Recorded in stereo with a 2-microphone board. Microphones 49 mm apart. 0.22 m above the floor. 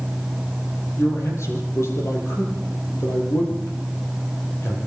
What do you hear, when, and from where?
1.0 s a man speaking: 65° left (ahead or behind), 6 m